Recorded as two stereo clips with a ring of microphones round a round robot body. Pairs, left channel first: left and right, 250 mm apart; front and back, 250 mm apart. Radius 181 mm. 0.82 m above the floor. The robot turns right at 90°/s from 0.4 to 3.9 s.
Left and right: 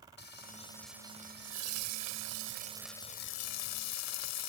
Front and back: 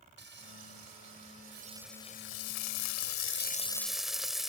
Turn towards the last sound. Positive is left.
turn(degrees=90)